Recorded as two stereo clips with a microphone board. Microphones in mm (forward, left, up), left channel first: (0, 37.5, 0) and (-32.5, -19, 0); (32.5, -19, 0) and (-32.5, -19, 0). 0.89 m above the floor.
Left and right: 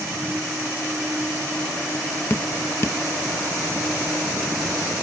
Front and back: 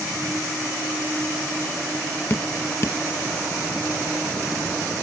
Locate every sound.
2.3 s dripping: 30° left, 0.7 m